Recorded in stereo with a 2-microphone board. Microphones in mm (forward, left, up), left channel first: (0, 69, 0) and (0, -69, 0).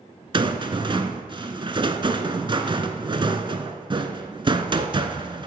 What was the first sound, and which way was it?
A rattle, 35° right (ahead or behind).